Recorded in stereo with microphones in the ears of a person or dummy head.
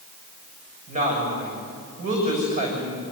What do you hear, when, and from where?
0.9 s a woman speaking: 40° right (ahead or behind), 7 m